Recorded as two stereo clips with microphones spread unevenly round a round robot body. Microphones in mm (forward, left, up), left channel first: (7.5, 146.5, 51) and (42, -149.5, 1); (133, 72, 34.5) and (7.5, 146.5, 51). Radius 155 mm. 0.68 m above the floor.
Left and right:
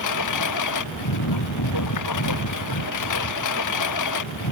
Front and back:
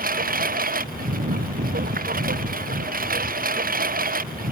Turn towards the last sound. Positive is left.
turn(degrees=130)